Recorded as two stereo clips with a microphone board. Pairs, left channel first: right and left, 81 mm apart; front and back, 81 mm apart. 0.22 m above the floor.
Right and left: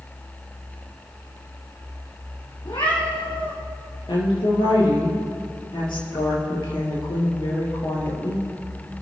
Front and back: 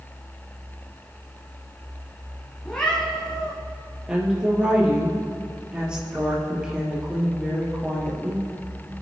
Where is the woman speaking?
100° right, 4.5 m.